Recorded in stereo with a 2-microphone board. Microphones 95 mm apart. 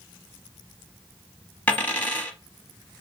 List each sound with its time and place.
1.7 s a dropped coin: 15° left (ahead or behind), 0.8 m